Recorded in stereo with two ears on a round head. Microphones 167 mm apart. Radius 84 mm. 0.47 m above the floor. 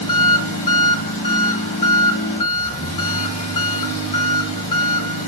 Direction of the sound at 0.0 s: 40° left (ahead or behind).